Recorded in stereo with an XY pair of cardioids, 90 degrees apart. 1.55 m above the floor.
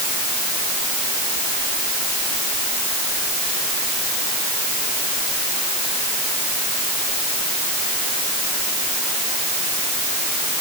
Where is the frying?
No frying in this recording.